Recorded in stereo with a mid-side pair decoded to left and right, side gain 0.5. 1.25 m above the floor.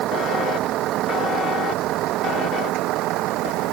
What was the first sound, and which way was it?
A vehicle, 70° right.